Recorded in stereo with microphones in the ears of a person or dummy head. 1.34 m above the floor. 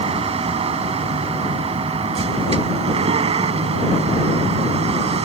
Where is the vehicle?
35° right (ahead or behind).